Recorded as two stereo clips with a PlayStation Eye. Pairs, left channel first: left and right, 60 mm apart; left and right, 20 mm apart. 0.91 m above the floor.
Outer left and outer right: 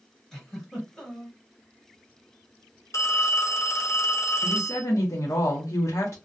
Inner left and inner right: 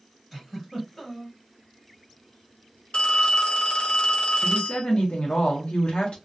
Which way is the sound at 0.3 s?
5° left (ahead or behind).